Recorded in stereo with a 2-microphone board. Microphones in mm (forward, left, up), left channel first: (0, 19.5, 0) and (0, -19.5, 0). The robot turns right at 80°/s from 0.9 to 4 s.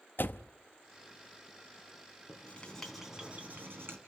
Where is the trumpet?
I don't hear a trumpet.